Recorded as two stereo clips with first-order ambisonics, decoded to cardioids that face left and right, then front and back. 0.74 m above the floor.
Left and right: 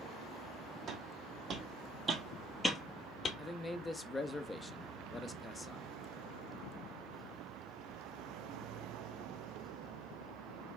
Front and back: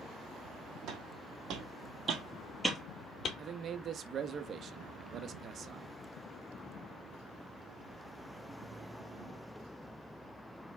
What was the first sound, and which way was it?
Footsteps, 140° right.